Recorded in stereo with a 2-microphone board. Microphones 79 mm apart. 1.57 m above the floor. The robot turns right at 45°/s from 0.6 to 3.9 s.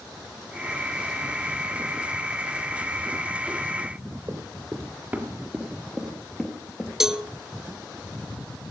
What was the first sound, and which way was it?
Running footsteps, 35° right (ahead or behind).